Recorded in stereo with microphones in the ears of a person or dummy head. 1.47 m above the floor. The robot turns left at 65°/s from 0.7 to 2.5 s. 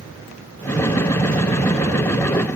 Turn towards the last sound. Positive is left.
No sound to turn to.